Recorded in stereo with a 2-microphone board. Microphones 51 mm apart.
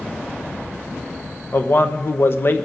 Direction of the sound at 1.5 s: 50° left (ahead or behind).